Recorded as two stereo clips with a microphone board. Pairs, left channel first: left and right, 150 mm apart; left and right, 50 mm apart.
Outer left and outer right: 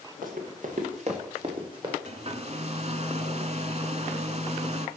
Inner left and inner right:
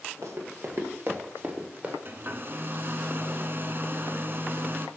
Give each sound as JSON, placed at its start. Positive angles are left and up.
{"t": 0.2, "sound": "running footsteps", "side_deg": -65, "distance_m": 2.0}
{"t": 2.0, "sound": "a hair dryer", "side_deg": -45, "distance_m": 0.6}